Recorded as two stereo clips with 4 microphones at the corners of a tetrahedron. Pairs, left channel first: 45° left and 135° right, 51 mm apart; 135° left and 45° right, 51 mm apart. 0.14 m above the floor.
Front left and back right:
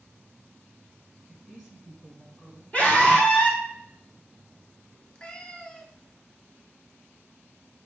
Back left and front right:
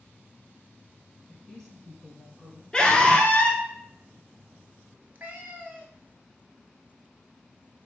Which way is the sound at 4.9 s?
20° right.